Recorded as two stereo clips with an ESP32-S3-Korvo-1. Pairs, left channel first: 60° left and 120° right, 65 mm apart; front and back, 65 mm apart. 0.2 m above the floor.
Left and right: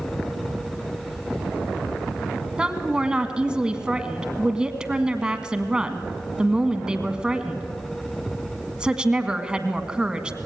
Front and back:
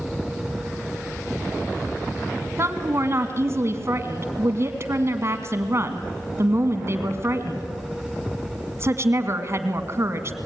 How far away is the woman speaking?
About 1.8 m.